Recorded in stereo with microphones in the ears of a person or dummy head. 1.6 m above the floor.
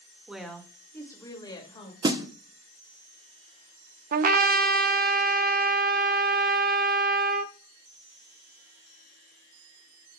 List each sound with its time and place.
0.3 s a woman speaking: centre (ahead or behind), 1.8 m; by 1.9 s 35° left (ahead or behind), 2.5 m
2.0 s a snare drum: 20° right (ahead or behind), 0.9 m
4.1 s a trumpet: 45° right (ahead or behind), 0.6 m